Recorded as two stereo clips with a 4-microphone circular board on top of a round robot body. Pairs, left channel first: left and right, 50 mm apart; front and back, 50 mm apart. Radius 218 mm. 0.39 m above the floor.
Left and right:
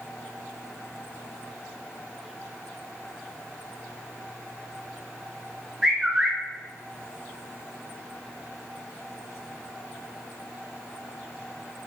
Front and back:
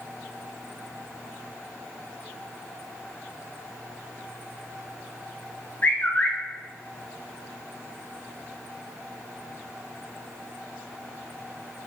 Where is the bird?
20° right, 1.0 m.